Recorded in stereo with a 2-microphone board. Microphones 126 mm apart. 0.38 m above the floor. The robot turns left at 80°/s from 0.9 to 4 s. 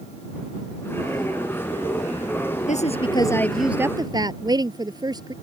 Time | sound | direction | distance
2.7 | a woman speaking | 75° left | ?